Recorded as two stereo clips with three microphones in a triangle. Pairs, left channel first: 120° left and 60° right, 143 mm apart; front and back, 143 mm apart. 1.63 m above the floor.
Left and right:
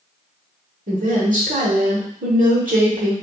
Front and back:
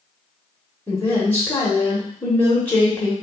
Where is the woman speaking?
75° right, 1.0 m.